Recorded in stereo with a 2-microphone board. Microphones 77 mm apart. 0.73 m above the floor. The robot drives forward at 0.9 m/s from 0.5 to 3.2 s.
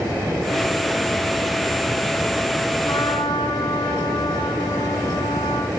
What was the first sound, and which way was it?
A trumpet, 70° left (ahead or behind).